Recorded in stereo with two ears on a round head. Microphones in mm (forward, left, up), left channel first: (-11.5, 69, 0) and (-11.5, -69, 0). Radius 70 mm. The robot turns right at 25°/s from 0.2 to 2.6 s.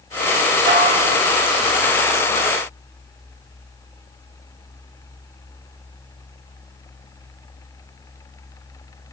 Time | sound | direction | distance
0.7 | dishes clattering | 60° right (ahead or behind) | 1.4 m